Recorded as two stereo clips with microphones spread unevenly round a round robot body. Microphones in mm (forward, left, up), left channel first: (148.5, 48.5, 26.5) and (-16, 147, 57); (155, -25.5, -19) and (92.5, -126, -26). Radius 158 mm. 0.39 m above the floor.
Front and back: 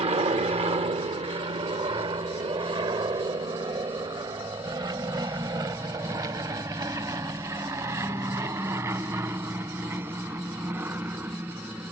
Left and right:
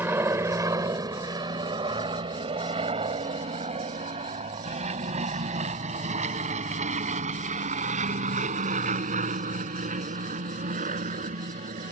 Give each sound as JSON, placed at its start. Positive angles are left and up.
{"t": 0.0, "sound": "an aircraft", "azimuth_deg": -175}